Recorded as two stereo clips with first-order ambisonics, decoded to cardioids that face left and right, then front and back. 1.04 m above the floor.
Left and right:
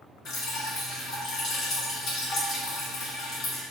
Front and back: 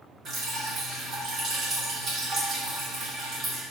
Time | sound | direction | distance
0.2 | dripping | 130° left | 0.8 m